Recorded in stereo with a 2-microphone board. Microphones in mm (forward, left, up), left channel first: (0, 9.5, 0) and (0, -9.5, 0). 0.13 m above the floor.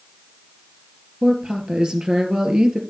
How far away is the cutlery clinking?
No cutlery clinking in this recording.